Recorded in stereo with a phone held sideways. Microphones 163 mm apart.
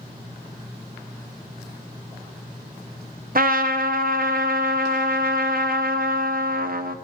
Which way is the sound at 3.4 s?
60° right (ahead or behind).